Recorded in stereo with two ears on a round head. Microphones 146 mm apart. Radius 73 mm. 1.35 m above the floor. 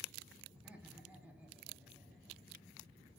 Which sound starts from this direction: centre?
Laughter, at 0.5 s.